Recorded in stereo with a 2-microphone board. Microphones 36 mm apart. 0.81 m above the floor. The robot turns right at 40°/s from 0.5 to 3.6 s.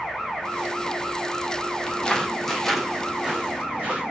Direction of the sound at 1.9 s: 25° left (ahead or behind).